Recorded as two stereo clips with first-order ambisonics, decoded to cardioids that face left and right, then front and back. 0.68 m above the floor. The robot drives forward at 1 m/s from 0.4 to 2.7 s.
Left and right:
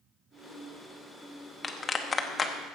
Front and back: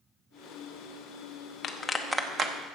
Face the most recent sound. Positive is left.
turn(degrees=165)